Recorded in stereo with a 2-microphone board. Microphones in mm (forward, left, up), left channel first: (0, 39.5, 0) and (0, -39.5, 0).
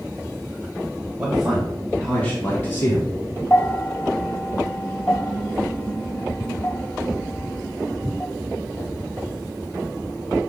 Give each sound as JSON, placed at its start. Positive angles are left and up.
{"t": 1.2, "sound": "a man speaking", "side_deg": -15, "distance_m": 1.6}
{"t": 3.5, "sound": "a bell", "side_deg": 25, "distance_m": 0.8}